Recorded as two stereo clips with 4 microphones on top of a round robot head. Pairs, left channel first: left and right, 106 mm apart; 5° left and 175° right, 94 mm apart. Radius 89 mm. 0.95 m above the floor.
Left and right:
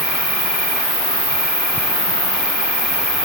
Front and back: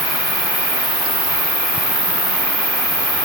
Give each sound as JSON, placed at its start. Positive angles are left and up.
{"t": 0.0, "sound": "an insect", "azimuth_deg": -125, "distance_m": 2.5}